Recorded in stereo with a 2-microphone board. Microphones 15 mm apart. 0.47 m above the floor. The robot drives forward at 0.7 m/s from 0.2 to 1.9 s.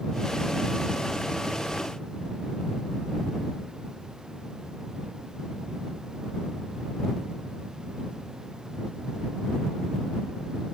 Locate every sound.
Only background noise.